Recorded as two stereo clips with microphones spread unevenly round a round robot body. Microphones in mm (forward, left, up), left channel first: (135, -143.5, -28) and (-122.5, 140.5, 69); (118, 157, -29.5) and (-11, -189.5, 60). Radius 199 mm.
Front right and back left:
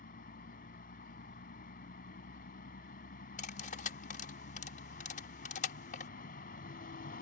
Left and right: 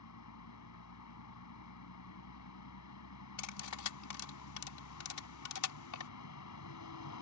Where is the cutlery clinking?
25° left.